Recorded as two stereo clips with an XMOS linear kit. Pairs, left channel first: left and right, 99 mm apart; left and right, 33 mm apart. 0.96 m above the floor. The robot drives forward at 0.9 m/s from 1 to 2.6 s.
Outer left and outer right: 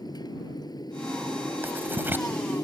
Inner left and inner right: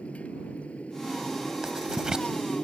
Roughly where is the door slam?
No door slam in this recording.